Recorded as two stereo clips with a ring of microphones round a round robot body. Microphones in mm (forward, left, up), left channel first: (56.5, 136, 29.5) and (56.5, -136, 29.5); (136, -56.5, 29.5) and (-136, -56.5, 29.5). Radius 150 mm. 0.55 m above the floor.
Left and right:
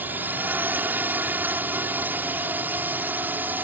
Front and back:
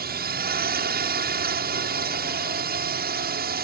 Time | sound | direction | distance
0.0 | a drone | 170° right | ?